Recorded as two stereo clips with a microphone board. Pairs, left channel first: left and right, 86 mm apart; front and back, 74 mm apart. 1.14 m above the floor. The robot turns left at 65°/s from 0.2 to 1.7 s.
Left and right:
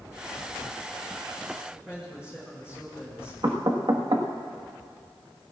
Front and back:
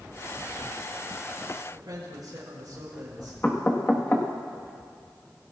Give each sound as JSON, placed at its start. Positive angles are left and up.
{"t": 1.7, "sound": "a man speaking", "azimuth_deg": -165, "distance_m": 4.0}
{"t": 3.4, "sound": "knocking", "azimuth_deg": -65, "distance_m": 1.5}